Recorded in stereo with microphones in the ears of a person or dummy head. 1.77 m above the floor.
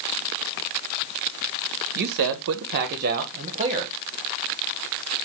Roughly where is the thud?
I don't hear a thud.